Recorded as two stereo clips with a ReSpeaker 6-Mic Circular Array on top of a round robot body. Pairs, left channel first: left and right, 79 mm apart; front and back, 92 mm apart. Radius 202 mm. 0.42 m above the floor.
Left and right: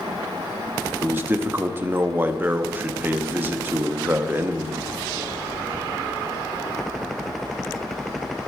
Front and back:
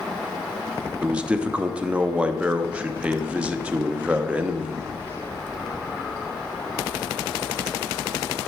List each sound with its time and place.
1.0 s a man speaking: 115° right, 1.4 m